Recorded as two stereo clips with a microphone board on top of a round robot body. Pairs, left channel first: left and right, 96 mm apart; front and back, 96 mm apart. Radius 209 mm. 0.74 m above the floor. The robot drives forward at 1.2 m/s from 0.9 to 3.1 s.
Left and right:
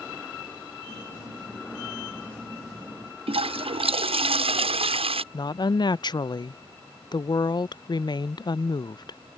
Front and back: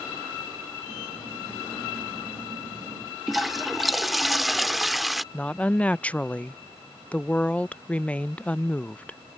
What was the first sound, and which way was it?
A toilet flushing, 90° right.